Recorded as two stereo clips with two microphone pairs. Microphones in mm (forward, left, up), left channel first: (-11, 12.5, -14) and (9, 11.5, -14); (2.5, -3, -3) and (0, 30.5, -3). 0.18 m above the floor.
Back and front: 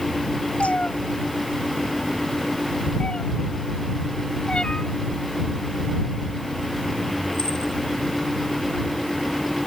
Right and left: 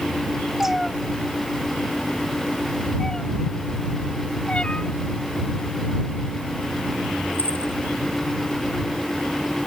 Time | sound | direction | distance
0.6 | a cat meowing | 175° left | ?